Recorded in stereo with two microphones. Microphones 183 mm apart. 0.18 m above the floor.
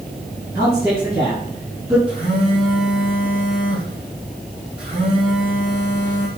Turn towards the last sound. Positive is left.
turn(degrees=-5)  # may be behind; listen again after turning